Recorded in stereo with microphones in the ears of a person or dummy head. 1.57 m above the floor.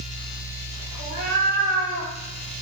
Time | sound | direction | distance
1.0 | a cat meowing | 35° right (ahead or behind) | 1.0 m